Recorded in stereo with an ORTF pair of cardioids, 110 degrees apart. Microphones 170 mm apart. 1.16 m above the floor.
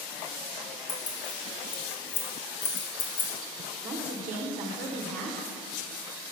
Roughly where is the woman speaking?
Ahead right.